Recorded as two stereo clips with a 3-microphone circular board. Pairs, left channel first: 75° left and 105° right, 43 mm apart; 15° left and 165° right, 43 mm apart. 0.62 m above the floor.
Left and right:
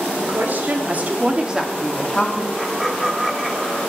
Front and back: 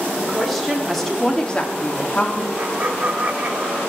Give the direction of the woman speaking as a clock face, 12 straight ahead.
3 o'clock.